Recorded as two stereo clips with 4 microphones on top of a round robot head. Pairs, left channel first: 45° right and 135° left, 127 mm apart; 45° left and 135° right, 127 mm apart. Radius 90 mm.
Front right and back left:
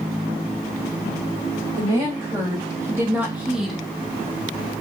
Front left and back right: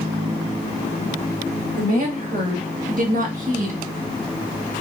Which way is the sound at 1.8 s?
160° right.